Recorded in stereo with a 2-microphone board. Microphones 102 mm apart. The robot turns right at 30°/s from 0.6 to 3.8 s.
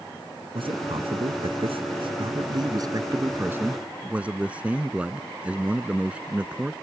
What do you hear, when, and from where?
0.6 s a man speaking: 110° right; by 6.7 s 15° right